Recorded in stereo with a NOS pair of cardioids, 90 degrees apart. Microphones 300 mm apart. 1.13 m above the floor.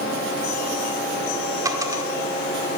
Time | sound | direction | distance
1.6 | a dropped coin | 10° right | 1.4 m